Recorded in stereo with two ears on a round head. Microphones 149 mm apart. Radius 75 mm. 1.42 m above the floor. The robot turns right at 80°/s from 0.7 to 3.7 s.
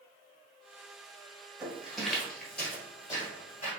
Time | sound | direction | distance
1.6 | footsteps | 5° right (ahead or behind) | 1.5 m